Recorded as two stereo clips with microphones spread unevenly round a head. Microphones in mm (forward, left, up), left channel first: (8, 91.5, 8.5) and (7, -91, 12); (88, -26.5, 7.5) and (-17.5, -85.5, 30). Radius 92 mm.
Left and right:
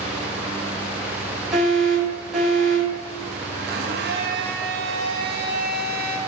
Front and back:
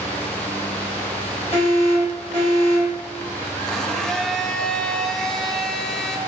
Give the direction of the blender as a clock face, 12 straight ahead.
2 o'clock.